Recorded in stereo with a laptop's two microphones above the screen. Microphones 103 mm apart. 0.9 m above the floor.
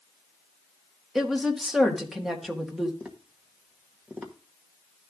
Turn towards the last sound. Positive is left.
turn(degrees=-15)  # may be behind; listen again after turning